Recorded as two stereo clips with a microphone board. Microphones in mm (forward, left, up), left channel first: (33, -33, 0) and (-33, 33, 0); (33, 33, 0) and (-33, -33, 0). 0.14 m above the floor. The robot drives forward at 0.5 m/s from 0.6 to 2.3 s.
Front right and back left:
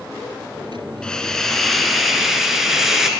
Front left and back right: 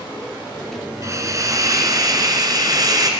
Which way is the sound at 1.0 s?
120° right.